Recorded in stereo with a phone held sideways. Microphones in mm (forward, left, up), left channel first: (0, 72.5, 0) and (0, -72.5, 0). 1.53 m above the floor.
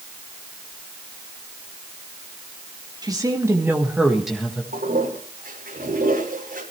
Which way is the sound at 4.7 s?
80° right.